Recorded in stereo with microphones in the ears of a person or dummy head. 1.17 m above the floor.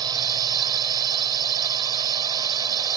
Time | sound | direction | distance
0.0 | a drone | 20° right (ahead or behind) | ?